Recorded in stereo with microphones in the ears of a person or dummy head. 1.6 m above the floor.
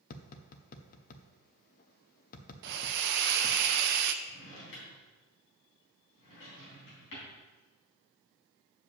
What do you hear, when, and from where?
0.1 s tapping: 45° left (ahead or behind), 0.6 m
2.6 s a hiss: 60° right (ahead or behind), 0.6 m
4.2 s a drawer: 70° left (ahead or behind), 3.5 m